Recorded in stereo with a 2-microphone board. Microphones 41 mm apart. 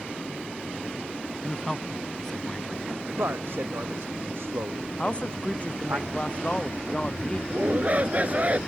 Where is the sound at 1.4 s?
15° left (ahead or behind).